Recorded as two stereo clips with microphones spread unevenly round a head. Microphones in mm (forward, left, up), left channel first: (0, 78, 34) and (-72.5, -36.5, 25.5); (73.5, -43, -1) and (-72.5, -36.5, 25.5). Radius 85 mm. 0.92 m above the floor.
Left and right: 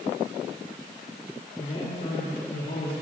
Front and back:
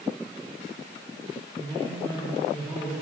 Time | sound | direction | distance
1.6 | a man speaking | 80° left | 3 m